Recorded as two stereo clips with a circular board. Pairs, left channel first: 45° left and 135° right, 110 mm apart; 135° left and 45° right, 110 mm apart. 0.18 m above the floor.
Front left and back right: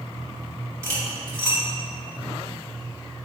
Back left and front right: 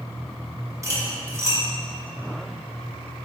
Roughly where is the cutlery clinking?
Right.